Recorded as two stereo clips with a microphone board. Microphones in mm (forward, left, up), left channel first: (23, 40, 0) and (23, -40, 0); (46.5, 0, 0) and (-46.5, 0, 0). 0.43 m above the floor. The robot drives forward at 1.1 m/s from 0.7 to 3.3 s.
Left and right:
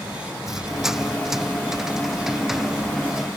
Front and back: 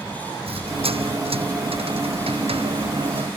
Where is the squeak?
175° right.